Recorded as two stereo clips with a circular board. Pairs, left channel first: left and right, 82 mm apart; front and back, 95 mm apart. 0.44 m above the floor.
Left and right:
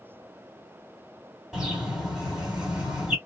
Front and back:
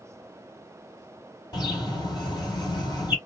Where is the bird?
10° right, 1.6 m.